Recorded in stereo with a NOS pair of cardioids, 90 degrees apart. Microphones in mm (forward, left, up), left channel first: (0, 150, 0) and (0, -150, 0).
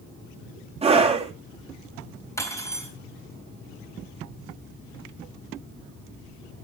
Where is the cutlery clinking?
10° left, 4 m.